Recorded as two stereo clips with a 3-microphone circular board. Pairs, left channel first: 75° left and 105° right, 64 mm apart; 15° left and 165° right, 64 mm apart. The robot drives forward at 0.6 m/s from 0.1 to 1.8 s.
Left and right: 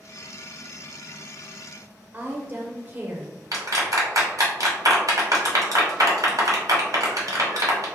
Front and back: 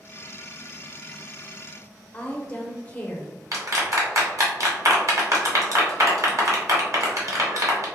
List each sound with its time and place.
2.1 s a woman speaking: 50° right, 0.6 m
3.5 s a clap: 130° right, 1.3 m